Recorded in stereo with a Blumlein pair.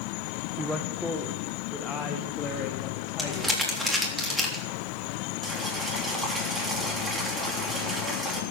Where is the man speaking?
10° right, 1.0 m; by 4.2 s 30° left, 3 m.